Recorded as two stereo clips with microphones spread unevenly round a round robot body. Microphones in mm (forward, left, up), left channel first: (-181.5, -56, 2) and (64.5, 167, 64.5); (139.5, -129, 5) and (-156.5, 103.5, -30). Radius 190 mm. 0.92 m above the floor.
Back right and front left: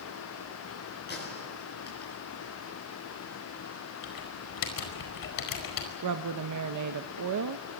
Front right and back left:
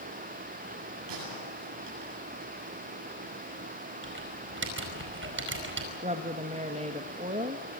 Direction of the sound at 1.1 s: 165° left.